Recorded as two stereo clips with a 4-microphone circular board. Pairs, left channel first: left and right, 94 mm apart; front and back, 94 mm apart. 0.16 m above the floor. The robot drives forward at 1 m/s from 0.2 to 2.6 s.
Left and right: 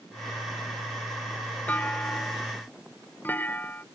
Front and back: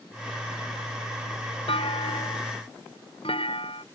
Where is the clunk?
15° left; by 3.9 s 20° left.